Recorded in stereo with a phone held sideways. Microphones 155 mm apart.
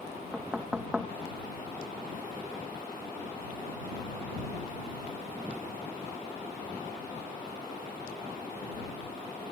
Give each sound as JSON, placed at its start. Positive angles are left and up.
{"t": 0.3, "sound": "knocking", "side_deg": -5}